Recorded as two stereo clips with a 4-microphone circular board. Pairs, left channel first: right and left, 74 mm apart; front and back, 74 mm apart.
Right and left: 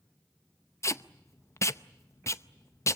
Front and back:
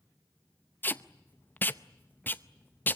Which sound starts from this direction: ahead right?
Tape being pulled, at 0.8 s.